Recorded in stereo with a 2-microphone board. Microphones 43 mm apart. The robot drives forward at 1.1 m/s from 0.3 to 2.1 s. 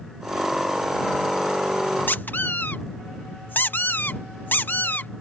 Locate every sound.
2.1 s a squeak: 50° left (ahead or behind)